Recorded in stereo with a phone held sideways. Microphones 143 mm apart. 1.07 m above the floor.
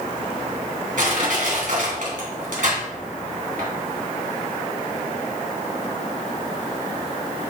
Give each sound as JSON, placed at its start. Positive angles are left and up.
{"t": 1.0, "sound": "crushing", "side_deg": -70, "distance_m": 2.5}